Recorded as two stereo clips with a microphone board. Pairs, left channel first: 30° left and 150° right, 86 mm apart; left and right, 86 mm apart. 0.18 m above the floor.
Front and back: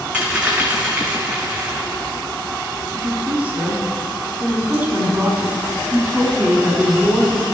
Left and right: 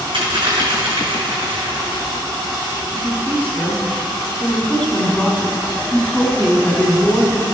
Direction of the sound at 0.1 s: 70° right.